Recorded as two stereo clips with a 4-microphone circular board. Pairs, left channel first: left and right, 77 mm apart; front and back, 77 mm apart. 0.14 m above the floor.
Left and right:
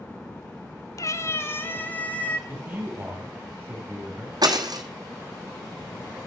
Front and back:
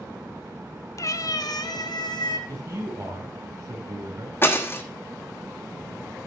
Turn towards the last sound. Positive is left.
turn(degrees=-60)